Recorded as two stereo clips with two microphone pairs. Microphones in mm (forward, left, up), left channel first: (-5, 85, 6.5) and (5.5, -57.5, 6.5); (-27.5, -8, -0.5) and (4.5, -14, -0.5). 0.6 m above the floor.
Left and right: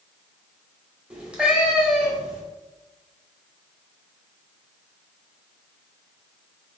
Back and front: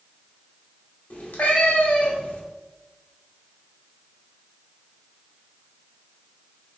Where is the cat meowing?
170° right, 1.0 m.